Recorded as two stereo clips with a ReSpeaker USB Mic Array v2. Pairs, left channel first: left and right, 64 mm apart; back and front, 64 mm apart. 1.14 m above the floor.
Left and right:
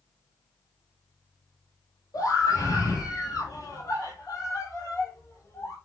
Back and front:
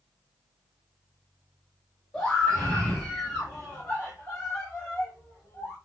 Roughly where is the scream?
Left.